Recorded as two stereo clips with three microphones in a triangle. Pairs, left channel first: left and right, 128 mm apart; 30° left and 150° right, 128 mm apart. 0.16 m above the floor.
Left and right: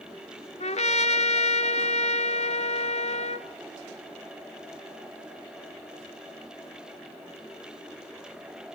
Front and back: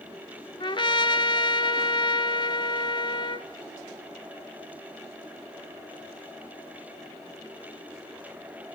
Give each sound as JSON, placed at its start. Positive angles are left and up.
{"t": 0.6, "sound": "a trumpet", "azimuth_deg": 75, "distance_m": 0.7}